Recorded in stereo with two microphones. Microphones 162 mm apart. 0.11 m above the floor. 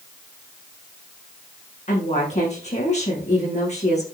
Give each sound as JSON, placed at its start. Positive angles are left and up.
{"t": 1.9, "sound": "a woman speaking", "side_deg": 45, "distance_m": 8.0}